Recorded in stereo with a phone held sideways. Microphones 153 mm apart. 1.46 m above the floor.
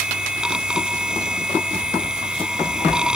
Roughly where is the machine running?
Centre.